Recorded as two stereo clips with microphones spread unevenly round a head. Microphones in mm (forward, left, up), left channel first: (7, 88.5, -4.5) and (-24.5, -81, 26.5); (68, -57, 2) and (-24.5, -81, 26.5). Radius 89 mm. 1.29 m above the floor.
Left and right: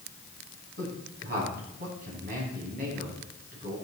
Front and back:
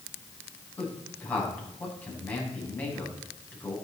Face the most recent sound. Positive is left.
turn(degrees=-60)